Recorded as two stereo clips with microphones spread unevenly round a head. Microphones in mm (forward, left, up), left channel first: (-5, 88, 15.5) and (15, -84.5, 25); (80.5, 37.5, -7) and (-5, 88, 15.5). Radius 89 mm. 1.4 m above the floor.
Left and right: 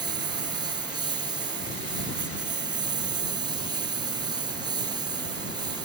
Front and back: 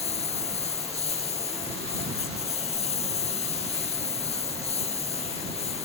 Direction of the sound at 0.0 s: 15° right.